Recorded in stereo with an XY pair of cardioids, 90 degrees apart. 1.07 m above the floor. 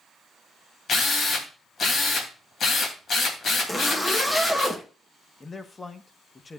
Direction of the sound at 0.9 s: 60° left.